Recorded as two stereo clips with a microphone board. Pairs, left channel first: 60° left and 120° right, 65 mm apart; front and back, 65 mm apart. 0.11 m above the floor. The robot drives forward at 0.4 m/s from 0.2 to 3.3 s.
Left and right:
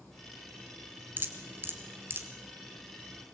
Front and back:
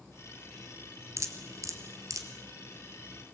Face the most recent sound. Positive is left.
turn(degrees=-170)